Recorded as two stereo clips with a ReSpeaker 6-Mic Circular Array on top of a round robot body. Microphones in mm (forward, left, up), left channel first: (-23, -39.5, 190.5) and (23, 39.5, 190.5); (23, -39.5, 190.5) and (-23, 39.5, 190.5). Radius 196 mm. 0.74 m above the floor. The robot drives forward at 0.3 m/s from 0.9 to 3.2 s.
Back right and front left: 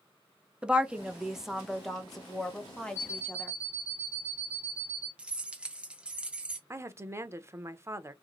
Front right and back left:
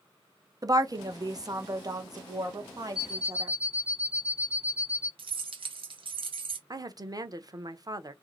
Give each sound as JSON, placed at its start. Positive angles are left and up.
{"t": 0.6, "sound": "a woman speaking", "azimuth_deg": 135, "distance_m": 0.8}
{"t": 3.0, "sound": "an alarm clock", "azimuth_deg": 120, "distance_m": 2.0}
{"t": 5.2, "sound": "keys jangling", "azimuth_deg": 140, "distance_m": 0.8}
{"t": 6.7, "sound": "a woman speaking", "azimuth_deg": 105, "distance_m": 0.8}